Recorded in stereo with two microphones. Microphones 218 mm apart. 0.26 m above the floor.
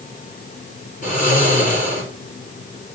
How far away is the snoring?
About 6 m.